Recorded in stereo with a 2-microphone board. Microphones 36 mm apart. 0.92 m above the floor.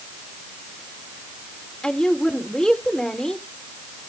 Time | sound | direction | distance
1.8 | a woman speaking | 20° left (ahead or behind) | 3 m